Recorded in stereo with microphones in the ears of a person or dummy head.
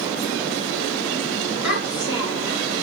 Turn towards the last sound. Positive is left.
turn(degrees=-10)  # may be behind; listen again after turning